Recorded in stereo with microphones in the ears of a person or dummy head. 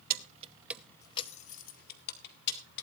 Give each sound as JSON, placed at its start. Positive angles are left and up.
{"t": 0.1, "sound": "keys jangling", "side_deg": -50, "distance_m": 1.0}